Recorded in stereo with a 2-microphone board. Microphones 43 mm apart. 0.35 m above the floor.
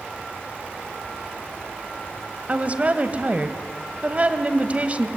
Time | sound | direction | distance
2.5 | a woman speaking | 35° right (ahead or behind) | 1.7 m